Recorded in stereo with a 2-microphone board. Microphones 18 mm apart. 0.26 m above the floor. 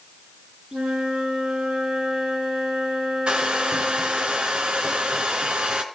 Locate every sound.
0.7 s a flute: 80° right, 6.5 m
3.3 s a hair dryer: 75° right (ahead or behind), 1.9 m